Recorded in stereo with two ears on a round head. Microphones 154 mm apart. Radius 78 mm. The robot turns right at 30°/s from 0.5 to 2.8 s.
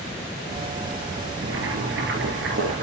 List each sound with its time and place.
1.4 s boiling: 90° right, 3.5 m; by 2.8 s 45° right, 3.5 m